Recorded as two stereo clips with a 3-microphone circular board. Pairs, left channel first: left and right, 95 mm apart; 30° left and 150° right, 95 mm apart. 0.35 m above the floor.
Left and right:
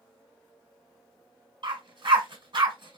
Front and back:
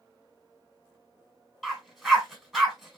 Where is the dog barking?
65° right, 1.4 m.